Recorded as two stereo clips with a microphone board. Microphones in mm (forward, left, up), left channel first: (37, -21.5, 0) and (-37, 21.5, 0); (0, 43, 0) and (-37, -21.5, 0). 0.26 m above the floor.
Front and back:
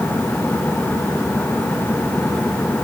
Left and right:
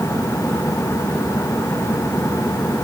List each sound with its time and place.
Only background noise.